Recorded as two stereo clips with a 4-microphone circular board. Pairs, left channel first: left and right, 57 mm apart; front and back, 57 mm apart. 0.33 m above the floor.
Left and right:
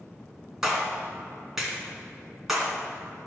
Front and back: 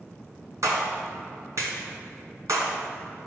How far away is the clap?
About 2.5 m.